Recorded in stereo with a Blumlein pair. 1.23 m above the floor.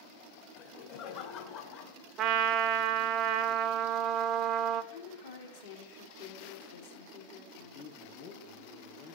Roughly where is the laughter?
Ahead left.